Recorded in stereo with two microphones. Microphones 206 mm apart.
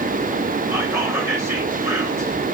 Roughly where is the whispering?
Centre.